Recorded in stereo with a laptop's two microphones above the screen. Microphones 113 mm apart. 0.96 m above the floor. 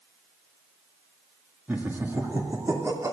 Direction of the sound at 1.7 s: 15° right (ahead or behind).